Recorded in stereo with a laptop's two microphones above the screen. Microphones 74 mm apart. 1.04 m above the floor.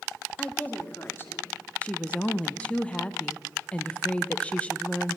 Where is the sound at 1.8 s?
15° left (ahead or behind), 0.6 m.